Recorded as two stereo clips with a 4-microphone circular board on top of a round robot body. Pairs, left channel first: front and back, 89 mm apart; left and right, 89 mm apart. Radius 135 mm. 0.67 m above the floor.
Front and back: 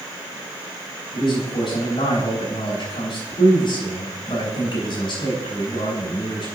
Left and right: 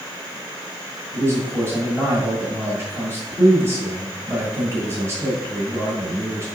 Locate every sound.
1.1 s a man speaking: 30° right, 5.5 m